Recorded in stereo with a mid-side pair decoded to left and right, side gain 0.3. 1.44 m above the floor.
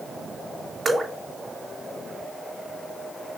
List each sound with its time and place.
0.8 s dripping: 55° right, 2.5 m